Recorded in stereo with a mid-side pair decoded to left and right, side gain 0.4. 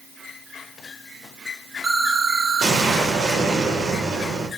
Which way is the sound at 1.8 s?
45° right.